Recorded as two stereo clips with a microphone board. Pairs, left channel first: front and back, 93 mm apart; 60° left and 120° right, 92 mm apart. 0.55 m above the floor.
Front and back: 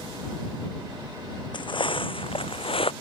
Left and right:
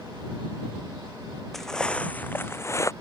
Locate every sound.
1.5 s footsteps: 30° right; by 2.9 s 5° left